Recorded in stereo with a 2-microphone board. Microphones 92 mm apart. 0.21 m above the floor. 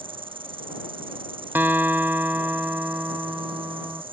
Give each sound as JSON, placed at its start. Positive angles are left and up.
{"t": 0.0, "sound": "an insect", "side_deg": -80}
{"t": 1.6, "sound": "a guitar", "side_deg": -20}